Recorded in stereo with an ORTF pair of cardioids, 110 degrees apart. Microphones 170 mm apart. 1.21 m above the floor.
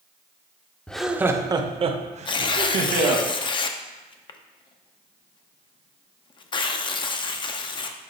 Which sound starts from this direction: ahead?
Laughter, at 0.9 s.